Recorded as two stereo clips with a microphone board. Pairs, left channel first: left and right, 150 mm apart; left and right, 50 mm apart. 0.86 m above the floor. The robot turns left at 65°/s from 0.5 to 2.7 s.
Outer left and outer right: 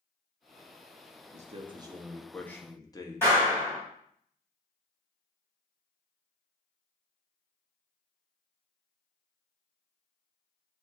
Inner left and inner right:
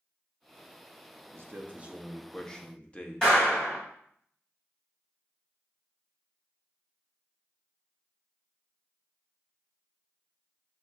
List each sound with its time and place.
1.3 s a man speaking: 120° right, 0.7 m; by 3.4 s 155° left, 0.7 m
3.2 s a clap: 15° left (ahead or behind), 2.5 m